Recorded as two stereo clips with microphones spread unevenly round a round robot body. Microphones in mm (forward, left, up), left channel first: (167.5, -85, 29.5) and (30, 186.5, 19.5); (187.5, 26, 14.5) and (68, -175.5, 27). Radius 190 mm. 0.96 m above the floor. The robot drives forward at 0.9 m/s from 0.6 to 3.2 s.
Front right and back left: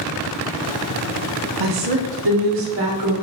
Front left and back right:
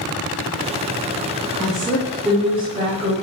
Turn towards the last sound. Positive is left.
turn(degrees=160)